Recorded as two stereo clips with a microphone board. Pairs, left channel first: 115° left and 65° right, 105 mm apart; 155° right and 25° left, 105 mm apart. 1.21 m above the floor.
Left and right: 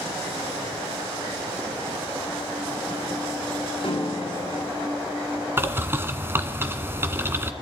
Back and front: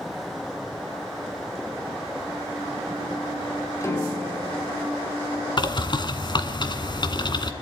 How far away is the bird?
About 1.8 m.